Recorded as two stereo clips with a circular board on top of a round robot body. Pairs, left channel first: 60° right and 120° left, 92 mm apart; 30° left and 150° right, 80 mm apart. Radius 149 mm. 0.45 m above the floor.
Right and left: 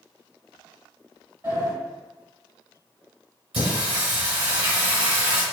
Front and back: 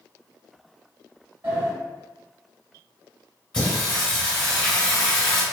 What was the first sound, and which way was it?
A sliding door, 165° left.